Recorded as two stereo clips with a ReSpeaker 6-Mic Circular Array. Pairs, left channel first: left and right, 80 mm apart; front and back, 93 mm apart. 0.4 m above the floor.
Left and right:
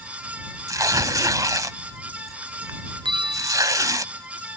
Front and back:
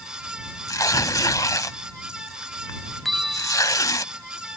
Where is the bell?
90° right.